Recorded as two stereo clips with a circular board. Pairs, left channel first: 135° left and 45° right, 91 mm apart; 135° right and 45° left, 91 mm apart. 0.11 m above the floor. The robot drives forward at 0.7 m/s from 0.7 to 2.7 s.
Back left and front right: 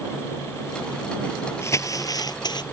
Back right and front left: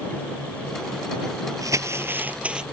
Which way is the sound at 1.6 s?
85° left.